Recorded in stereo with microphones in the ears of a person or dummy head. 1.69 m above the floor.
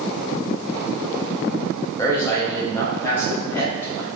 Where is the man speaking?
15° left (ahead or behind), 1.1 m; by 4.1 s 20° left (ahead or behind), 2.5 m.